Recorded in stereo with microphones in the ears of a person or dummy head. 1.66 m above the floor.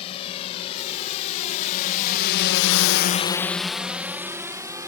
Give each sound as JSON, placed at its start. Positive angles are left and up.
{"t": 0.0, "sound": "a drone", "side_deg": 35}